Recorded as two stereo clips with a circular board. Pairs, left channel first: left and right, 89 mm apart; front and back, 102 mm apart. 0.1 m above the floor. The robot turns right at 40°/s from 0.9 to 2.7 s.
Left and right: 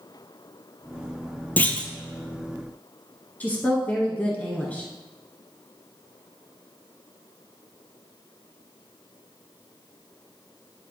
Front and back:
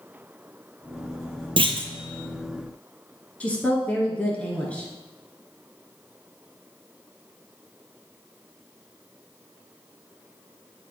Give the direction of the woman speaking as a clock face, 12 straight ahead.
10 o'clock.